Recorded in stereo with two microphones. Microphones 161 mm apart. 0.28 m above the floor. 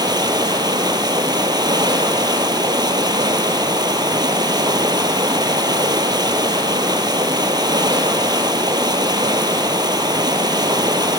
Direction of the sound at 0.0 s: 25° right (ahead or behind).